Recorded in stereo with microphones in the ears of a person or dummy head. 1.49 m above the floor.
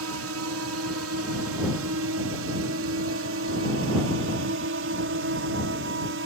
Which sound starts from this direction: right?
A drone, at 0.0 s.